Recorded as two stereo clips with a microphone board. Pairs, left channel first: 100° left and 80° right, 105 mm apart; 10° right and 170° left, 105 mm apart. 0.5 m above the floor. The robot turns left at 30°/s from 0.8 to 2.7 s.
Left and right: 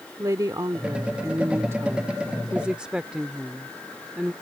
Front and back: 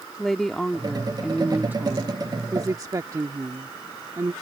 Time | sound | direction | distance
0.2 | a woman speaking | 95° right | ?